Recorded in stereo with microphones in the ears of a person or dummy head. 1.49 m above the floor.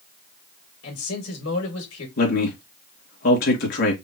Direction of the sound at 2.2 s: 65° left (ahead or behind).